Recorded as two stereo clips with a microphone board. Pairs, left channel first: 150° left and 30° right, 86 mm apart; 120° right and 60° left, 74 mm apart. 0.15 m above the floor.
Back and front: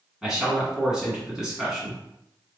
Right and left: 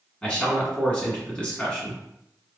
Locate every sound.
0.2 s a man speaking: 95° right, 1.6 m